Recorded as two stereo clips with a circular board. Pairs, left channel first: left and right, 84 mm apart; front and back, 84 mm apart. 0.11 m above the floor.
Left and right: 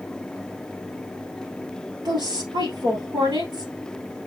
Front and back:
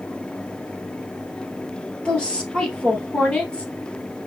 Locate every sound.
2.0 s a woman speaking: 75° right, 2 m